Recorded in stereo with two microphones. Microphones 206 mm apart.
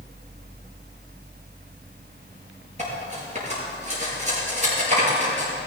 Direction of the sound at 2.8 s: 35° right (ahead or behind).